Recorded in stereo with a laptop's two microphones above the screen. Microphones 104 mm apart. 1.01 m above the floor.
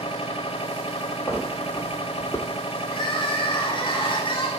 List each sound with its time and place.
0.0 s a machine running: 85° left, 1.2 m
1.3 s footsteps: 30° left (ahead or behind), 2 m
2.9 s crying: 55° left (ahead or behind), 2.5 m